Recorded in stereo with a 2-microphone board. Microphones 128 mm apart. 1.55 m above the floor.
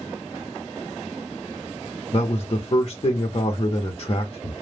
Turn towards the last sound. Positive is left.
turn(degrees=40)  # may be behind; listen again after turning